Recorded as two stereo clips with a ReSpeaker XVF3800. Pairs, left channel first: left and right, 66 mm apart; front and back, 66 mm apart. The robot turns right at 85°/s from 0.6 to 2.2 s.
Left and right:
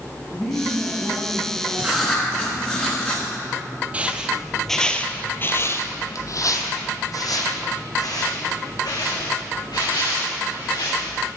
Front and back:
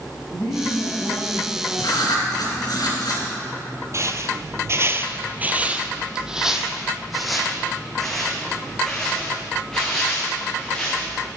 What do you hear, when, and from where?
0.3 s a woman speaking: straight ahead, 5 m; by 2.8 s 135° left, 5 m
1.8 s writing: 20° right, 3.5 m; by 3.2 s 15° left, 3.5 m
3.9 s footsteps: 150° right, 0.9 m; by 11.3 s 80° left, 4 m